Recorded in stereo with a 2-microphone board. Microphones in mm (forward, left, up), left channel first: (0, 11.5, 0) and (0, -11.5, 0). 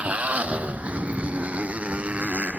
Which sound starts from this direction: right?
A motorcycle, at 0.0 s.